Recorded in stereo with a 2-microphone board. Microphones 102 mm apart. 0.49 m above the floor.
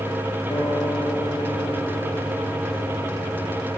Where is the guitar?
50° left (ahead or behind), 6.5 m.